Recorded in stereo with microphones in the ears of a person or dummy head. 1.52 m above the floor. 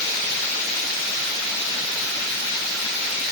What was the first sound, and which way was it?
Only background noise.